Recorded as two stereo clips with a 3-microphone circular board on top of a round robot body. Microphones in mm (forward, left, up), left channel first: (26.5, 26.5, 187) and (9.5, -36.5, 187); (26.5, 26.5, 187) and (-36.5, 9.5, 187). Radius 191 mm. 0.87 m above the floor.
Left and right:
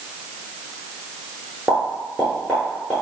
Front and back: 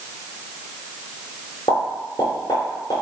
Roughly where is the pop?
Ahead.